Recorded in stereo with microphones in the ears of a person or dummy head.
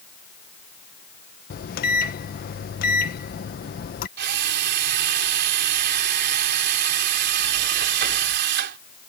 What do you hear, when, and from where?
1.5 s a microwave: 50° left (ahead or behind)
4.2 s a drill: 70° right (ahead or behind)